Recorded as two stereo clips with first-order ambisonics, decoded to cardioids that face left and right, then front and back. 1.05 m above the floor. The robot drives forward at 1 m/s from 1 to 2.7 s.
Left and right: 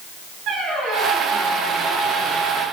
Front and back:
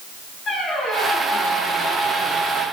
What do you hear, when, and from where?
0.5 s a squeak: 60° right, 5 m; by 2.6 s 80° right, 4.5 m